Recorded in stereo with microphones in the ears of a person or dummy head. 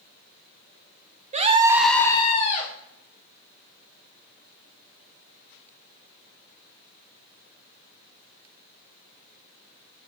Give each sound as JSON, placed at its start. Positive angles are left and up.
{"t": 1.3, "sound": "a scream", "side_deg": -40, "distance_m": 0.7}